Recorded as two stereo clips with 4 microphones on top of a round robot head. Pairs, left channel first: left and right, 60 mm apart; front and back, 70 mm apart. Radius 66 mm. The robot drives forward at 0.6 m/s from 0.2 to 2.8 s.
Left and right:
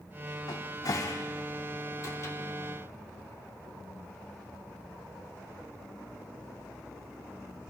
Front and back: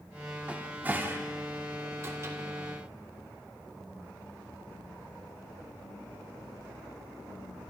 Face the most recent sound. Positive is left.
turn(degrees=135)